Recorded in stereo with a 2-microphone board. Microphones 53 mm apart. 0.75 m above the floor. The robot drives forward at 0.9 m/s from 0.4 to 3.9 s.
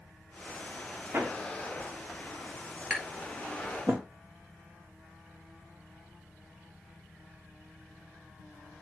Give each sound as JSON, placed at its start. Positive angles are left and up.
{"t": 1.1, "sound": "hammering", "side_deg": -45, "distance_m": 1.6}
{"t": 2.9, "sound": "tapping", "side_deg": -20, "distance_m": 2.0}